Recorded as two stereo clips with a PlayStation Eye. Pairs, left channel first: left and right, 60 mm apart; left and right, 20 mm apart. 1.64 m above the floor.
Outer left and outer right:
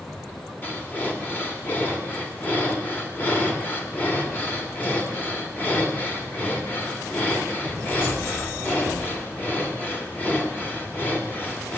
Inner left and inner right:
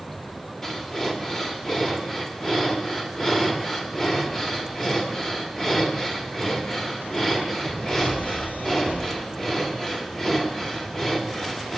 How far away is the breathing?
About 1.7 m.